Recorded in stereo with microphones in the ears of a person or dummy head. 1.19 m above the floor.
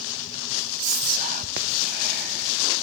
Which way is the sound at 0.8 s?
45° right (ahead or behind).